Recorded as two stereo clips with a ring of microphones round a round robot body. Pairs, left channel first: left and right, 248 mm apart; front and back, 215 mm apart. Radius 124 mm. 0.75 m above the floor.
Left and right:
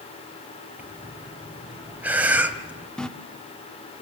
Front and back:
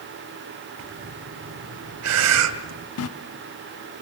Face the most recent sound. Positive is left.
turn(degrees=5)